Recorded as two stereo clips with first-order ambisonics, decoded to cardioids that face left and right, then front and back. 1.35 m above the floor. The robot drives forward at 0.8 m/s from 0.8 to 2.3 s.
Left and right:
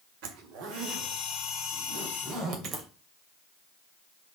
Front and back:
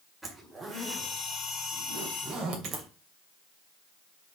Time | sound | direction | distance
0.2 | a zipper | 100° right | 1.8 m